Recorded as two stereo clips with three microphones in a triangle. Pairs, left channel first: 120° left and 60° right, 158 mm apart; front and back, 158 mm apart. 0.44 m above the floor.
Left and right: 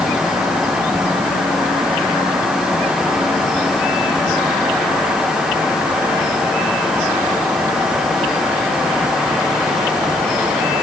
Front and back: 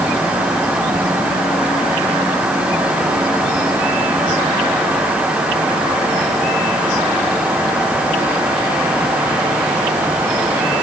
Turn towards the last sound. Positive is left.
No sound to turn to.